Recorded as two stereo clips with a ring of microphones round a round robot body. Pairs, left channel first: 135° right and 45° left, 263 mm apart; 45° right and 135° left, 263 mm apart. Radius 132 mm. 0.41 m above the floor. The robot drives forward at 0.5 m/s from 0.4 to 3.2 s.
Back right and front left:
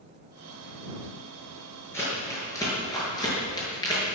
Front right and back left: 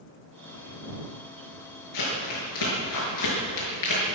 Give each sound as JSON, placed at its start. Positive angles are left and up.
{"t": 1.9, "sound": "crumpling", "azimuth_deg": -55, "distance_m": 6.5}